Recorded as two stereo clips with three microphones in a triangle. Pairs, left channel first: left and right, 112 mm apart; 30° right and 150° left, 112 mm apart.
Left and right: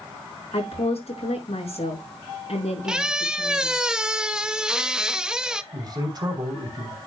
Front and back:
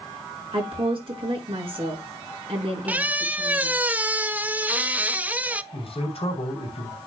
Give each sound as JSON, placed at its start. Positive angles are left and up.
{"t": 0.5, "sound": "a woman speaking", "azimuth_deg": 115, "distance_m": 5.0}
{"t": 2.9, "sound": "a squeak", "azimuth_deg": -160, "distance_m": 0.5}
{"t": 5.7, "sound": "a man speaking", "azimuth_deg": -45, "distance_m": 3.0}